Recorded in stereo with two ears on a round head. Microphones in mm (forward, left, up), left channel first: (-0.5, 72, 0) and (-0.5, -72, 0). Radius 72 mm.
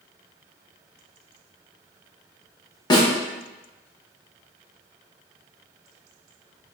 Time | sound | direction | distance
2.9 | a snare drum | 25° left (ahead or behind) | 0.9 m